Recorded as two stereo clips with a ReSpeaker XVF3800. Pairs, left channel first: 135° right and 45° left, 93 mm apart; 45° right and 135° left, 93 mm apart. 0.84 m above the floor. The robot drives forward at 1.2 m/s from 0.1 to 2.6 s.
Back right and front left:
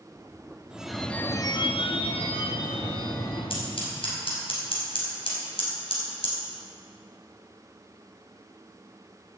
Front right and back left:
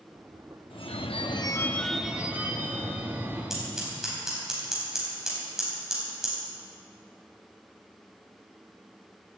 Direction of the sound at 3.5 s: 140° right.